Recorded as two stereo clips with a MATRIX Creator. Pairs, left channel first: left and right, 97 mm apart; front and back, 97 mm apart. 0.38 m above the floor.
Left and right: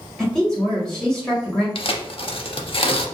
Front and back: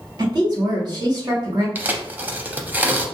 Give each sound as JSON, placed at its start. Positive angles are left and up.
{"t": 0.2, "sound": "a woman speaking", "azimuth_deg": 170, "distance_m": 1.8}
{"t": 1.8, "sound": "tearing paper", "azimuth_deg": 110, "distance_m": 0.5}